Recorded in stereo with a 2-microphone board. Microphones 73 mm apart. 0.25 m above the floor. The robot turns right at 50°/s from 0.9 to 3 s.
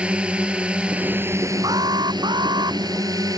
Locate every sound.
0.0 s a drone: 165° right; by 3.4 s 60° right
1.6 s an alarm: 120° right; by 2.8 s 65° right